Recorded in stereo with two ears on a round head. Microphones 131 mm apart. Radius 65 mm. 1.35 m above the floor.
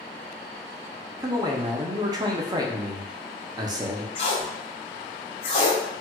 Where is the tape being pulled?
40° left (ahead or behind), 0.9 m.